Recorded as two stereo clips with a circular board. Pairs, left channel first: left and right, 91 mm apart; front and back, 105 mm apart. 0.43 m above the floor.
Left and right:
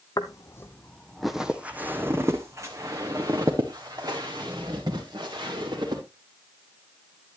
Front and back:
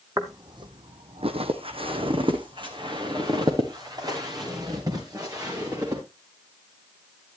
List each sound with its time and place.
0.2 s footsteps: 125° left, 1.0 m; by 6.0 s 125° right, 4 m